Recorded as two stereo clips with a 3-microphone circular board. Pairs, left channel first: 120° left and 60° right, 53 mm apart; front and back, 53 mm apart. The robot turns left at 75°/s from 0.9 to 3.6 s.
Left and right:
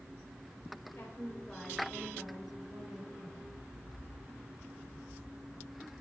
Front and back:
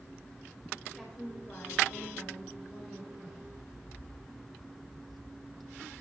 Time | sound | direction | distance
0.9 | a woman speaking | 95° left | 2.5 m